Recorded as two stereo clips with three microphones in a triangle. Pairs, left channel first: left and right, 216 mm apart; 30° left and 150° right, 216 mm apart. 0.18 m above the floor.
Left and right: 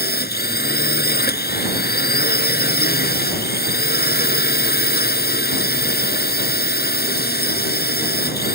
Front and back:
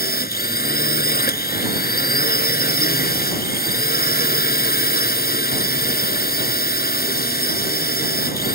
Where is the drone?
60° left.